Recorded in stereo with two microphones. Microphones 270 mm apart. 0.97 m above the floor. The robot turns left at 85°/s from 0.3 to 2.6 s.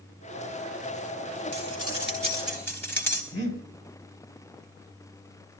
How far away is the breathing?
About 4.5 m.